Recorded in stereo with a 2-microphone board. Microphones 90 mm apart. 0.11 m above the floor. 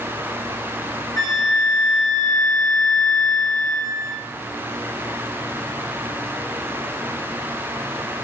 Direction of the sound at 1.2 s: 45° left (ahead or behind).